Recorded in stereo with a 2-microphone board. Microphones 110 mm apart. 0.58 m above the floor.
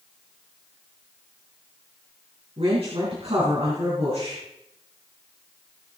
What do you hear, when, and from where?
2.6 s a woman speaking: 60° right (ahead or behind), 5 m